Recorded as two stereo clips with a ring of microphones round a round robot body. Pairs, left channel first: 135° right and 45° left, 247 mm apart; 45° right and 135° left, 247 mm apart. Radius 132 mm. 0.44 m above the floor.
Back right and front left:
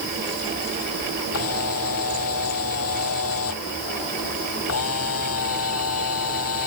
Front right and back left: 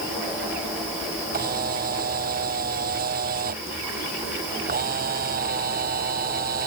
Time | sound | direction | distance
1.3 | a camera shutter | 170° right | ?